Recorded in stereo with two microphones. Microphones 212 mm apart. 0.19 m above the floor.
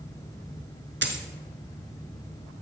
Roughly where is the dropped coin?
Right.